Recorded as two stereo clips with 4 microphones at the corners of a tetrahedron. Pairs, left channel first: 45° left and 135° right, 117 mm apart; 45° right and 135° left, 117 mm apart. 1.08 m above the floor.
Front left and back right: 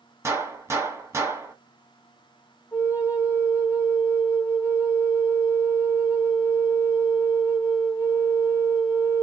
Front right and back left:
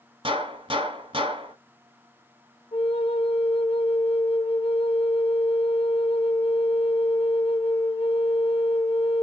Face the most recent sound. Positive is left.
turn(degrees=-20)